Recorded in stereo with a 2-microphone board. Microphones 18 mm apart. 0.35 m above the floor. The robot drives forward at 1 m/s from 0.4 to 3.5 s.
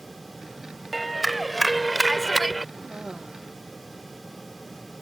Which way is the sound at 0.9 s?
Centre (ahead or behind).